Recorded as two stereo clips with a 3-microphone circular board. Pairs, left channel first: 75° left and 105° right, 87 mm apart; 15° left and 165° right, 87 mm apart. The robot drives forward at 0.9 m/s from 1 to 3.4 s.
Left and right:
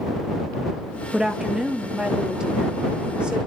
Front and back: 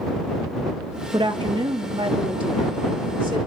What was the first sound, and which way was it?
A woman speaking, 170° left.